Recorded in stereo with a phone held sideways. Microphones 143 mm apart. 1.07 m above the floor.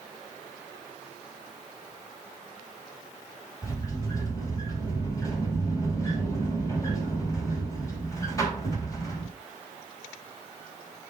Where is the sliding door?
25° left (ahead or behind), 3.5 m.